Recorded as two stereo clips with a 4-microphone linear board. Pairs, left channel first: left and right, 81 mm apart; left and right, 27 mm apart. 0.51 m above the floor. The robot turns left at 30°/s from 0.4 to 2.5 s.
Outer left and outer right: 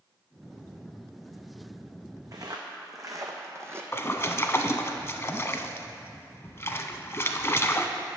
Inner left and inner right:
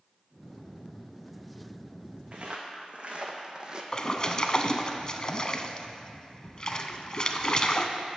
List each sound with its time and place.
2.3 s footsteps: 50° right (ahead or behind), 1.7 m; by 3.8 s 30° right (ahead or behind), 1.1 m
3.9 s a splash: 35° left (ahead or behind), 0.5 m